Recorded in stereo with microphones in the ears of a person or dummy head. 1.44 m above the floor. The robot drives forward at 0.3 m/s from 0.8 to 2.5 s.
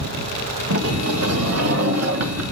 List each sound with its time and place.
0.7 s a sliding door: 80° right, 1.2 m; by 2.4 s 70° right (ahead or behind), 1.2 m